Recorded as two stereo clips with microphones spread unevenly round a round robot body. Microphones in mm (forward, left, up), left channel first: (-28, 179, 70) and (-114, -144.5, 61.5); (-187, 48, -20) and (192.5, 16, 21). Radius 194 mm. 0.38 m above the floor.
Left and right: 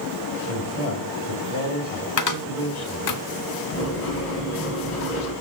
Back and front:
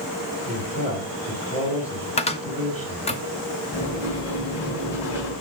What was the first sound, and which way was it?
A man speaking, 120° left.